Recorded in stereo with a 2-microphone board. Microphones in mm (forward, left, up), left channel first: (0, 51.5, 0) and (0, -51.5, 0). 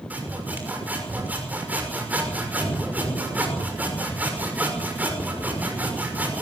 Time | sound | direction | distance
0.1 | sawing | 15° right (ahead or behind) | 6 m